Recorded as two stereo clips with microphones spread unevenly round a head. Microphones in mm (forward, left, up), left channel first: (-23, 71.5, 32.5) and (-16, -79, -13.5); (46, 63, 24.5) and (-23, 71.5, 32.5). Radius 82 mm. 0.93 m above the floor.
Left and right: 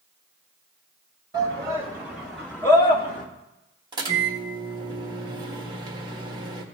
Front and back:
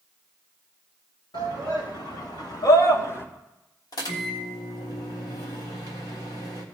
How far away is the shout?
About 3 m.